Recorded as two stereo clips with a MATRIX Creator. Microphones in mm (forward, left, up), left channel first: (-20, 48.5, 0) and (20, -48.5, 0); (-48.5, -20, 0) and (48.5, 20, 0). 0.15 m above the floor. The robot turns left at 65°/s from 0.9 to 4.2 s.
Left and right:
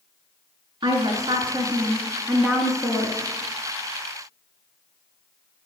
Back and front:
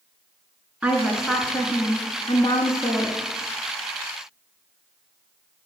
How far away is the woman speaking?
About 1.5 m.